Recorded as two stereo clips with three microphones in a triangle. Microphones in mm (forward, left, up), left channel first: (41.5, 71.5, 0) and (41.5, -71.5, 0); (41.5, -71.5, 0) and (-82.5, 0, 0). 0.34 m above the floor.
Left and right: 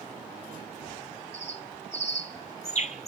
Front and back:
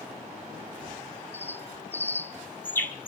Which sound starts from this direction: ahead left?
A bird, at 1.3 s.